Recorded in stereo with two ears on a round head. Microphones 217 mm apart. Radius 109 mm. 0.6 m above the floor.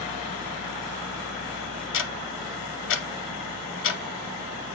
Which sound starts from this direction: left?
Ticking, at 1.9 s.